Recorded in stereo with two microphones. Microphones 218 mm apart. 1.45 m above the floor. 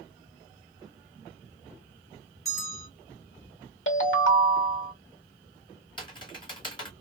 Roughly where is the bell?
Centre.